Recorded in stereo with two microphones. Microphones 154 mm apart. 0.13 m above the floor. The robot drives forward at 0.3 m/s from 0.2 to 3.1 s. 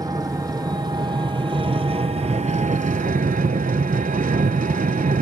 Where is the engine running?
25° right (ahead or behind), 1.1 m; by 5.2 s 60° right (ahead or behind), 0.5 m.